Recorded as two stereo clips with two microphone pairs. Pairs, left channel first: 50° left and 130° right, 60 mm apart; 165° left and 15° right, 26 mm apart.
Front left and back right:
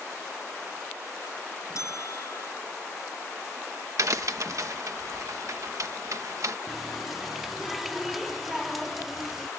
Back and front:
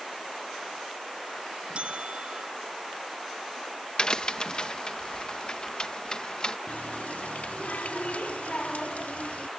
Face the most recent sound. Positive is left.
turn(degrees=145)